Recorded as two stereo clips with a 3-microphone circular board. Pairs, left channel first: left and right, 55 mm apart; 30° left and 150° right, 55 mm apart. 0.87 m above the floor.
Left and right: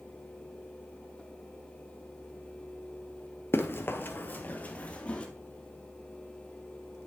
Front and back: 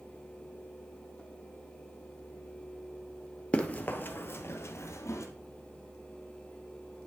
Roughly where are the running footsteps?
Left.